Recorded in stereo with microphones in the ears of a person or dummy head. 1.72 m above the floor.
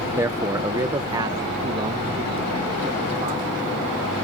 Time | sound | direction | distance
0.2 | a man speaking | 15° right (ahead or behind) | ?